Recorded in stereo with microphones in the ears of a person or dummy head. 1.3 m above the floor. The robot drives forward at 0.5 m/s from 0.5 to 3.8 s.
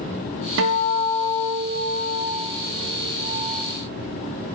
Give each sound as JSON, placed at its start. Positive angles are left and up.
{"t": 0.6, "sound": "a guitar", "side_deg": -75, "distance_m": 1.0}